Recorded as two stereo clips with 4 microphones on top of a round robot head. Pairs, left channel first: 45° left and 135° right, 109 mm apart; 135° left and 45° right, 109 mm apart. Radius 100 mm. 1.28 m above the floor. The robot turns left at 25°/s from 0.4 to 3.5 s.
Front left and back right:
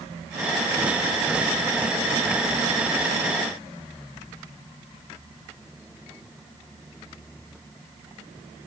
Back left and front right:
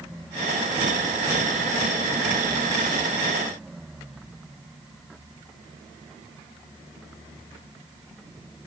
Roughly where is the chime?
No chime in this recording.